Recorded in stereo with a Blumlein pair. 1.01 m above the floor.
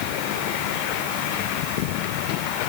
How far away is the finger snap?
No finger snap in this recording.